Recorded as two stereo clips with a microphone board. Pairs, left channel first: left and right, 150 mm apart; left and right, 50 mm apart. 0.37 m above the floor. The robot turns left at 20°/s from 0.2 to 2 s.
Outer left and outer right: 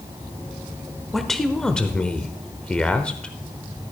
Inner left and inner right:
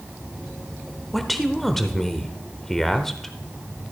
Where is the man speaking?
Centre (ahead or behind), 0.8 m; by 3.3 s 5° left (ahead or behind), 0.8 m.